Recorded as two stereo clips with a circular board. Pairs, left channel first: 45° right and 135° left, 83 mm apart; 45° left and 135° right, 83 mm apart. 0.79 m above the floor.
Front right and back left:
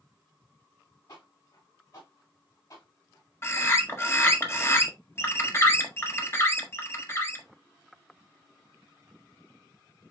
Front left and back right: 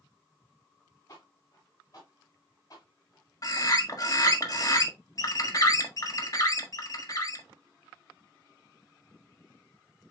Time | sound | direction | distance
1.1 | footsteps | 5° right | 4 m
3.4 | a bird | 10° left | 1.5 m